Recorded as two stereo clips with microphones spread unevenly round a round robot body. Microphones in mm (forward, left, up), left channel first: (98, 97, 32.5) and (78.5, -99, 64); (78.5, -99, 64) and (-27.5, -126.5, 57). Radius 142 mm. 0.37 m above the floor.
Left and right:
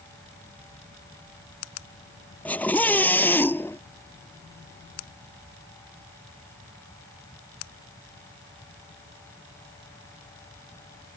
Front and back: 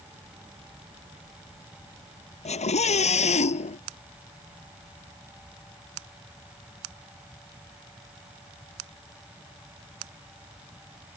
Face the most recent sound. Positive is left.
turn(degrees=5)